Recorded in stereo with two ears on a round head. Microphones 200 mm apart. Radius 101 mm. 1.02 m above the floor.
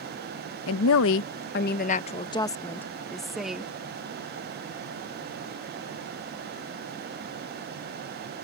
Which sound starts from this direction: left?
A woman speaking, at 0.7 s.